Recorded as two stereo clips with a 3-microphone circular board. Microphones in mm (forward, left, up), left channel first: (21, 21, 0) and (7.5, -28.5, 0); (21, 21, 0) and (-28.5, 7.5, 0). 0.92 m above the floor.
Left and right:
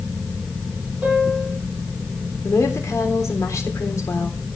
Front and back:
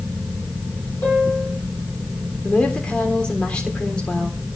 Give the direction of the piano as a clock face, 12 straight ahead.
1 o'clock.